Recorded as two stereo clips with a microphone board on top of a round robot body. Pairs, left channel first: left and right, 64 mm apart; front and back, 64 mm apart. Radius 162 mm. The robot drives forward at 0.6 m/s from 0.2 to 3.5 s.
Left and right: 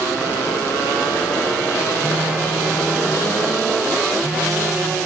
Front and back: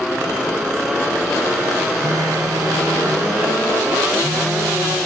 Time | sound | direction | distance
2.0 | a phone buzzing | 155° right | 0.9 m